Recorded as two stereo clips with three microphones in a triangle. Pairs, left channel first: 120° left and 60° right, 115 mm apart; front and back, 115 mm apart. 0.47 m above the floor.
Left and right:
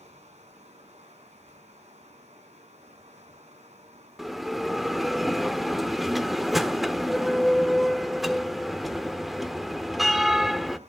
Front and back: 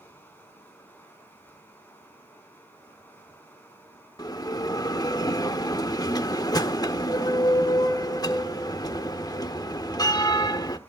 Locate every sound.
0.0 s running water: 75° right, 4.5 m
4.2 s a bell: 25° left, 0.9 m